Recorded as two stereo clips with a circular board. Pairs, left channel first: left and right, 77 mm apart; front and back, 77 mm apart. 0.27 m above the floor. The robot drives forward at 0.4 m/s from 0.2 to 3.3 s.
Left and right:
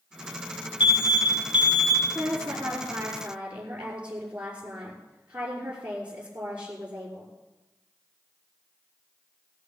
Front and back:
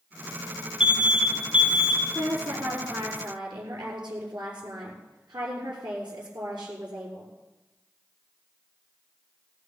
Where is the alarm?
100° left, 5 m; by 2.0 s 105° left, 5 m.